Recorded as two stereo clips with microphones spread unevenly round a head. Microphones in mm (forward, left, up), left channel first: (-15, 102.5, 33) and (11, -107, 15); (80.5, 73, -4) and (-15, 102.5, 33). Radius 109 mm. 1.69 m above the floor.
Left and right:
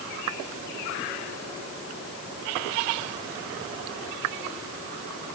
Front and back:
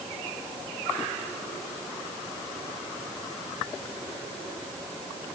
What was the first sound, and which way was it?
Only background noise.